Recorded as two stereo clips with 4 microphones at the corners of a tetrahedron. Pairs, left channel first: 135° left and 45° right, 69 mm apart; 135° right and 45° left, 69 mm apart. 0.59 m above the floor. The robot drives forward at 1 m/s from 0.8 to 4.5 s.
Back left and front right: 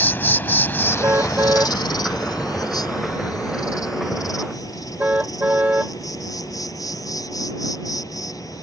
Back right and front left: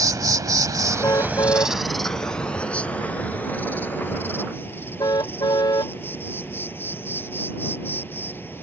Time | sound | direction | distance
0.0 | an insect | 75° left | ?
1.0 | a car horn | 100° right | ?